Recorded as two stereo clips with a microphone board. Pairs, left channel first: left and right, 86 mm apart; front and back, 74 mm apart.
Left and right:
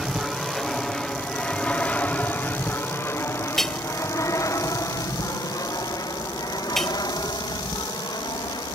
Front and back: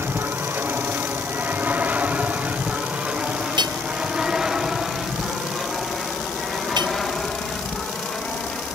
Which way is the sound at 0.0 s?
175° right.